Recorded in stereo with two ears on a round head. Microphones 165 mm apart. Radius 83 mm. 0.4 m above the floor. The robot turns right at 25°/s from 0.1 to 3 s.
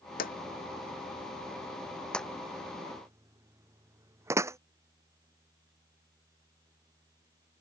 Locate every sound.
0.2 s a drawer: 55° left (ahead or behind); by 4.6 s 15° right (ahead or behind)